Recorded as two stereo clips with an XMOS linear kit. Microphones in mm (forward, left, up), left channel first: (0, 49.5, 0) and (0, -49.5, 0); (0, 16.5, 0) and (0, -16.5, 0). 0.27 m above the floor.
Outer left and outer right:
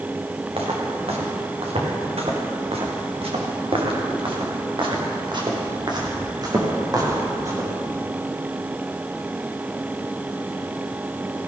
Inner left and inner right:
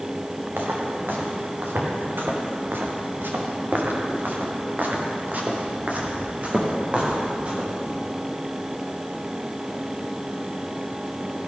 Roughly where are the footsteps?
Right.